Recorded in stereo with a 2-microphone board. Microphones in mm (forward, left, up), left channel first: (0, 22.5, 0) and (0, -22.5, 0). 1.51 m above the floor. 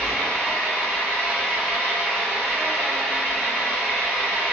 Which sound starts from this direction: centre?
An engine running, at 0.0 s.